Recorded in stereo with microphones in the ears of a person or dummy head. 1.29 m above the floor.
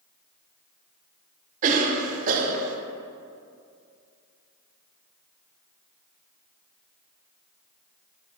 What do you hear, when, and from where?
1.6 s a cough: 45° right (ahead or behind), 0.8 m